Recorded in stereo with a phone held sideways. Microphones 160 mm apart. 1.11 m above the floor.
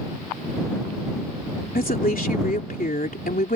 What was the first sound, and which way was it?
A woman speaking, 65° left (ahead or behind).